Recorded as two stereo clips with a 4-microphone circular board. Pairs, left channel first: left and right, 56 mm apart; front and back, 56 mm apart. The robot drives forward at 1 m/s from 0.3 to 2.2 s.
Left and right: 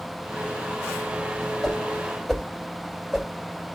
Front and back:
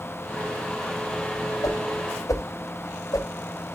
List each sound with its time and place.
1.6 s a whoosh: straight ahead, 2.5 m